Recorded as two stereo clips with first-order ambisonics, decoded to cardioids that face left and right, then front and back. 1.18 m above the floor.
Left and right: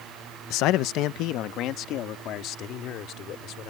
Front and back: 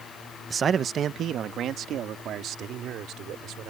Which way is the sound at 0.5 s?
110° left.